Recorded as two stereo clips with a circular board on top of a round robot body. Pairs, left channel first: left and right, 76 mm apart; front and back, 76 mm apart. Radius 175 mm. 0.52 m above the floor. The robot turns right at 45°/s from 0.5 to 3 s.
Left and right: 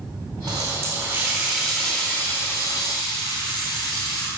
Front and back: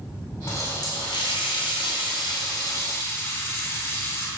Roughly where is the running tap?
Ahead right.